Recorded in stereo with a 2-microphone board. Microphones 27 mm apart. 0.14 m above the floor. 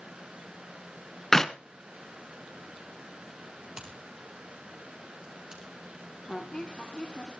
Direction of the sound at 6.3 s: 30° left (ahead or behind).